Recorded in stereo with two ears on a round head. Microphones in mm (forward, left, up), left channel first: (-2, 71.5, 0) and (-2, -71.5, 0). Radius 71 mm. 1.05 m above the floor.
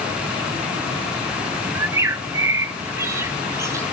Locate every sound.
1.8 s a bird: 20° right (ahead or behind), 0.6 m